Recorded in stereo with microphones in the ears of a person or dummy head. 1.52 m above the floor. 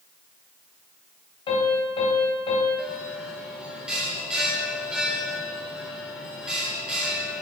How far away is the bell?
About 1.5 m.